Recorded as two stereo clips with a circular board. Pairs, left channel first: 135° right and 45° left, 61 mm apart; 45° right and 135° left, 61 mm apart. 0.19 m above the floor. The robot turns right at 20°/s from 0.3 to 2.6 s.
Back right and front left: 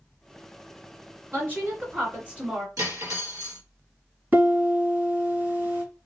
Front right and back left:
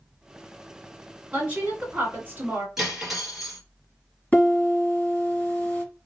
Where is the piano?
10° left, 1.8 m.